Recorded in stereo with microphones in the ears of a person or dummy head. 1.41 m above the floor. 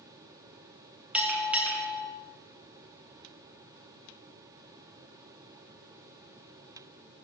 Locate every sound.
1.1 s a bell: 5° right (ahead or behind), 1.3 m